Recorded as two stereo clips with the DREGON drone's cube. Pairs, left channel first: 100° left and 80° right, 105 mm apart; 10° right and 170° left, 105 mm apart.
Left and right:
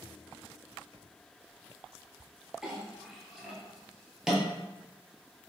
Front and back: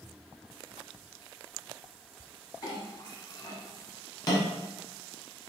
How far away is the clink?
About 1.1 m.